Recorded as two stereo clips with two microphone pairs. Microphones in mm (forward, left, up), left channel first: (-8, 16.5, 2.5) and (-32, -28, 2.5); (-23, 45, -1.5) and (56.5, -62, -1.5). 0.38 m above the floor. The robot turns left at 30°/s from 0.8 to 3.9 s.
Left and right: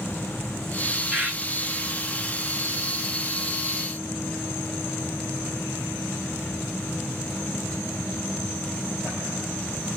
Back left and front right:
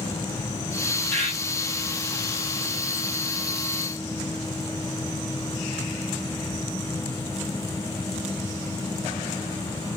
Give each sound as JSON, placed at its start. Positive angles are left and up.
{"t": 1.1, "sound": "a bird", "azimuth_deg": -160, "distance_m": 1.6}